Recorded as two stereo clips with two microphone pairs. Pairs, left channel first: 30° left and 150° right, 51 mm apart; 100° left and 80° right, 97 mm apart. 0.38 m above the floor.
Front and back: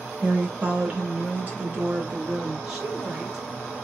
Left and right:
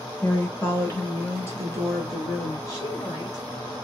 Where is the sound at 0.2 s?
160° left, 0.9 m; by 2.6 s 155° left, 1.9 m.